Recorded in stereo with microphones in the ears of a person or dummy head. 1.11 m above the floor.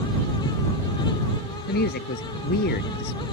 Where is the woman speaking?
55° left (ahead or behind).